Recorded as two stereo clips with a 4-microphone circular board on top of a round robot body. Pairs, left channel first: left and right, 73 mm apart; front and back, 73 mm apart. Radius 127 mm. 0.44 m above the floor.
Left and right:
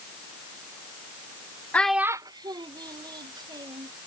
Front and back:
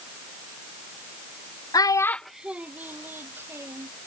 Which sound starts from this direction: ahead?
A child speaking, at 1.7 s.